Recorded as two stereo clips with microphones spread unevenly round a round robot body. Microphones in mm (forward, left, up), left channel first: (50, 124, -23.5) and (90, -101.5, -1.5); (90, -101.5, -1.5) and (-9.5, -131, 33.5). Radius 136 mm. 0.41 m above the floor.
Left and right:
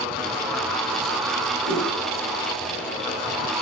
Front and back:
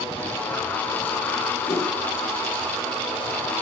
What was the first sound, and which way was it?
A whoosh, 15° left.